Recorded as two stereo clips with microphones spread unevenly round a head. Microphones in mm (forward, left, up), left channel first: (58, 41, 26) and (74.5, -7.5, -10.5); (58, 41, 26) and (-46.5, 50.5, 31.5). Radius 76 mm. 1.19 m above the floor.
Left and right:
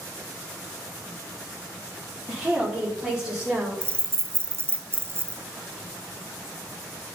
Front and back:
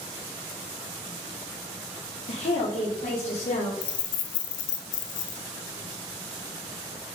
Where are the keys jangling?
15° right, 0.8 m.